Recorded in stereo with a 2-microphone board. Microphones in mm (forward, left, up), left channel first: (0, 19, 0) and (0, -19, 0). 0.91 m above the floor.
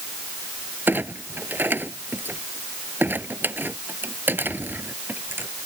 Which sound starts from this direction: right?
A clunk, at 0.9 s.